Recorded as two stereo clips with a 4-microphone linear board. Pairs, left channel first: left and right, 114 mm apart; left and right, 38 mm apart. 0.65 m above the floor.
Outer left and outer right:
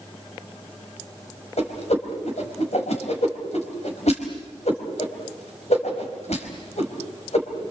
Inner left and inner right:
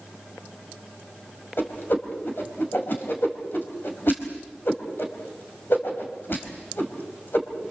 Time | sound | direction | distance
1.6 | a whoosh | 70° left (ahead or behind) | 4 m